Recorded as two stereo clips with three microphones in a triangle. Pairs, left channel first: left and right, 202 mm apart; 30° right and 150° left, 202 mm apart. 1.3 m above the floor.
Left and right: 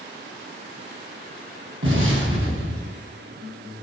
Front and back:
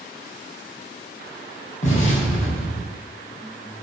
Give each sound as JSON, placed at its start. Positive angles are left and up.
{"t": 1.8, "sound": "an explosion", "azimuth_deg": -85, "distance_m": 6.5}